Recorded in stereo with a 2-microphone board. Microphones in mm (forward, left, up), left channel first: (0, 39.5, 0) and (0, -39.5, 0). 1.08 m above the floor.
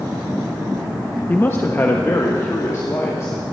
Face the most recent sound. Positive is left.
turn(degrees=40)  # may be behind; listen again after turning